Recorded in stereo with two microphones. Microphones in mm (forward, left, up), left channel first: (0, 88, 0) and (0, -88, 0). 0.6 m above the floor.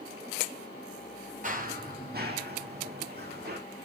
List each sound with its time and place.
1.4 s running footsteps: 50° right (ahead or behind), 1.0 m; by 3.6 s 65° right (ahead or behind), 2 m